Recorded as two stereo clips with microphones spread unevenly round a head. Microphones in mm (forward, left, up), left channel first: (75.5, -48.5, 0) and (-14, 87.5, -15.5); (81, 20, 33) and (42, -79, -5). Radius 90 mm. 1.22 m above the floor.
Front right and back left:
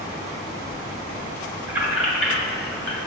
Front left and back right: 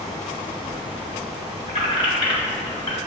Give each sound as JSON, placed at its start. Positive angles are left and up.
{"t": 1.7, "sound": "keys jangling", "azimuth_deg": 45, "distance_m": 1.3}